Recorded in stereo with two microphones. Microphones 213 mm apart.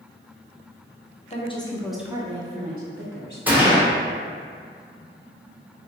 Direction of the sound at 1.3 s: 30° left (ahead or behind).